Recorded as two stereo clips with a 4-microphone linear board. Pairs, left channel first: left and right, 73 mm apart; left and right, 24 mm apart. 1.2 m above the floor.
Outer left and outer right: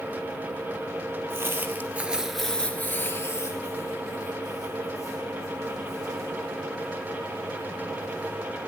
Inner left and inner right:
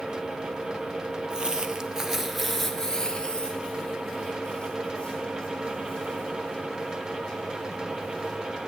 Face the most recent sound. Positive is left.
turn(degrees=45)  # may be behind; listen again after turning